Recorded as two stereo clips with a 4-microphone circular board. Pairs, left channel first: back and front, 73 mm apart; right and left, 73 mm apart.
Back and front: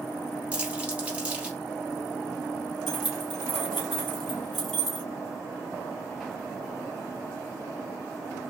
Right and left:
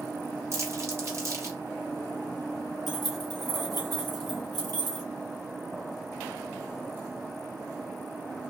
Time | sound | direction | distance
0.5 | crumpling | 65° left | 1.2 m
2.9 | keys jangling | 95° left | 2 m